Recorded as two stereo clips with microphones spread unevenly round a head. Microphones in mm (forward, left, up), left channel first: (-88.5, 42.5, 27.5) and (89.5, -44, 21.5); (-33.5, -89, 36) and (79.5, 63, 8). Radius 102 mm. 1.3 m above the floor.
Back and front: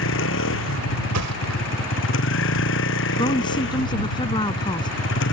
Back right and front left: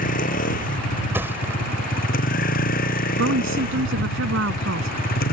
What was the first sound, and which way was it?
A vehicle, straight behind.